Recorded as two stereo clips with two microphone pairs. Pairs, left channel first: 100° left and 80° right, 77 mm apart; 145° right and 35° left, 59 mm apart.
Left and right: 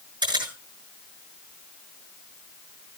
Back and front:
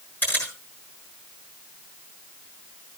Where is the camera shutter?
90° right, 6.5 m.